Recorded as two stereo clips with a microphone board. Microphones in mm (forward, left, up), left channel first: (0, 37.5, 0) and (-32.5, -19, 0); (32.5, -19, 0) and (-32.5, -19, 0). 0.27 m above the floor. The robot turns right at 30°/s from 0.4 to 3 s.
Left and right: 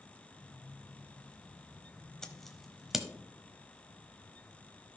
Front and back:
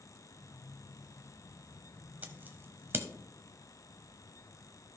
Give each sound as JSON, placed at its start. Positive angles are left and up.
{"t": 2.2, "sound": "scissors", "azimuth_deg": 135, "distance_m": 1.0}